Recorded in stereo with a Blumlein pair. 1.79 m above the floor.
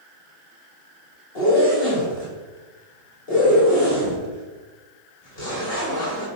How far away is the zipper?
About 4 m.